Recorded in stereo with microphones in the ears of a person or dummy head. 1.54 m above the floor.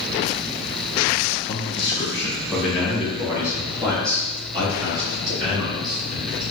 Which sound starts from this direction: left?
A man speaking, at 1.5 s.